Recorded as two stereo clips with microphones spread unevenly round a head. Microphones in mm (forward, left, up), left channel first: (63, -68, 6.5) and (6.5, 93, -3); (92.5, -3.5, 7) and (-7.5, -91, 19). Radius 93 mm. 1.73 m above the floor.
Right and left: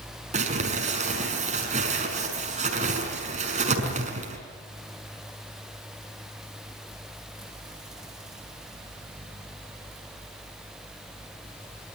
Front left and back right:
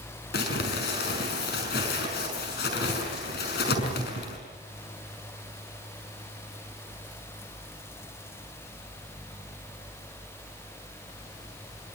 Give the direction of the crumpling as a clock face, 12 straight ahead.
10 o'clock.